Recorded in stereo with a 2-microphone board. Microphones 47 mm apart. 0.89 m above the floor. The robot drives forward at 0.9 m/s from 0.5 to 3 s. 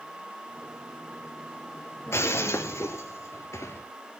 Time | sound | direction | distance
2.1 | breaking glass | 70° left (ahead or behind) | 2.5 m